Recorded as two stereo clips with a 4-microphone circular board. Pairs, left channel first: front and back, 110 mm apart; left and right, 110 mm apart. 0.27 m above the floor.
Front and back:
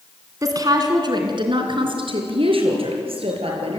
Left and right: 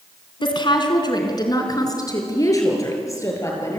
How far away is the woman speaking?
About 3 m.